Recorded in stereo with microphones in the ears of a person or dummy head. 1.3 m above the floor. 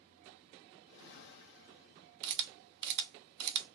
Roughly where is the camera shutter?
Right.